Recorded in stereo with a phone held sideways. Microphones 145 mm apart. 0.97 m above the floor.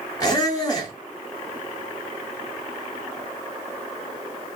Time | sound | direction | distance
0.2 | a squeak | 25° left (ahead or behind) | 1.3 m